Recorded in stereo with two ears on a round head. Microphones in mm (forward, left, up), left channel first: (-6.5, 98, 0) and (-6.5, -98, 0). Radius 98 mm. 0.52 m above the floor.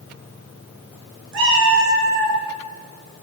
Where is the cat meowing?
55° right (ahead or behind), 3 m.